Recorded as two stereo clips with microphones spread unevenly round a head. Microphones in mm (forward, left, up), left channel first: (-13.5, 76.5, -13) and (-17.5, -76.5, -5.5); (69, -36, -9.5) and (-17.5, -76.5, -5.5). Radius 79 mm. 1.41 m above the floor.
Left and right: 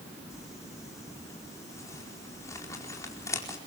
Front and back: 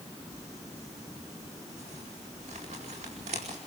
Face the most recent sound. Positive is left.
turn(degrees=160)